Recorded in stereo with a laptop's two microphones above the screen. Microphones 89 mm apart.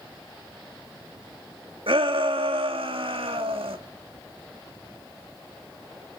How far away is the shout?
About 1.8 m.